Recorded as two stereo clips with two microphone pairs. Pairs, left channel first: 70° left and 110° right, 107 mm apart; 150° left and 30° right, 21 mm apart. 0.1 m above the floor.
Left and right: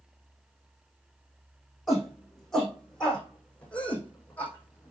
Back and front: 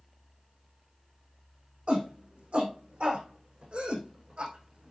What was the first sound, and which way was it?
A shout, 20° right.